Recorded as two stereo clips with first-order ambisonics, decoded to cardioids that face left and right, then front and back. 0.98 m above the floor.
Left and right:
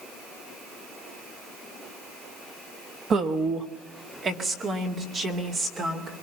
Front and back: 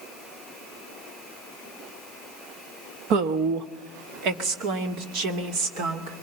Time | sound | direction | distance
3.1 | a woman speaking | 150° right | 1.2 m